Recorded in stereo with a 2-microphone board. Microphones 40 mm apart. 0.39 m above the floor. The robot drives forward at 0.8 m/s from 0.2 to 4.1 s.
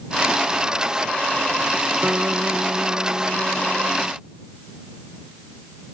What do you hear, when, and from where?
2.0 s a guitar: 60° right (ahead or behind); by 4.2 s 65° right (ahead or behind)